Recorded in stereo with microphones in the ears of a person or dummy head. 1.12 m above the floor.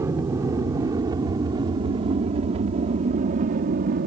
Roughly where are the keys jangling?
I don't hear keys jangling.